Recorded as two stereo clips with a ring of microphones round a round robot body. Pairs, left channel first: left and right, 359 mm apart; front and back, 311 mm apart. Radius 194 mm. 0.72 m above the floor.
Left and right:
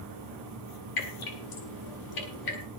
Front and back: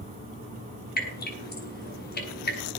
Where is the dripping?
60° left, 6.5 m.